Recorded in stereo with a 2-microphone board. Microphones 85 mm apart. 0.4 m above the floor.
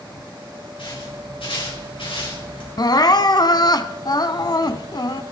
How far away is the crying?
About 0.8 m.